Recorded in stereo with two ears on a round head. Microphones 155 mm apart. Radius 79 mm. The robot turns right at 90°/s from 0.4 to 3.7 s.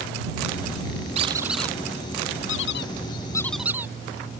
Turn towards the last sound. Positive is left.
turn(degrees=-10)  # may be behind; listen again after turning